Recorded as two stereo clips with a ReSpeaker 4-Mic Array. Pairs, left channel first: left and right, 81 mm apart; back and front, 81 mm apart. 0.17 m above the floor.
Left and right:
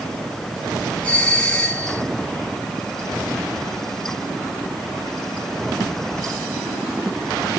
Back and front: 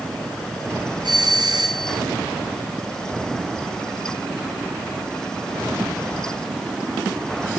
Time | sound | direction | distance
1.0 | a doorbell | 20° left | 5 m